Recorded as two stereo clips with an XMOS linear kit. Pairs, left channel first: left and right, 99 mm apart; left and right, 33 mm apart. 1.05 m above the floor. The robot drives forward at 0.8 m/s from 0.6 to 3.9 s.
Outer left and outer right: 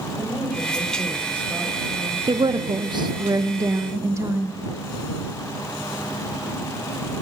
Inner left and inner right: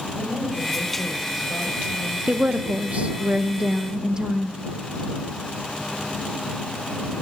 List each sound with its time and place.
0.2 s a woman speaking: 15° right (ahead or behind), 6.5 m; by 3.3 s 25° right (ahead or behind), 4.5 m
2.3 s a woman speaking: 50° right (ahead or behind), 0.9 m; by 4.6 s 30° right (ahead or behind), 1.4 m